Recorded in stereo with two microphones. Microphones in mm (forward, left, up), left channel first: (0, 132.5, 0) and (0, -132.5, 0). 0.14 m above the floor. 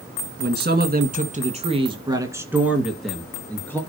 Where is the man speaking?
40° right (ahead or behind), 2.0 m; by 3.8 s 10° left (ahead or behind), 2.5 m.